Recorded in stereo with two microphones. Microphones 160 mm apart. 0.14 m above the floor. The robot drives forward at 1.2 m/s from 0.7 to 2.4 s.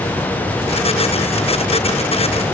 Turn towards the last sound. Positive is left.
No sound to turn to.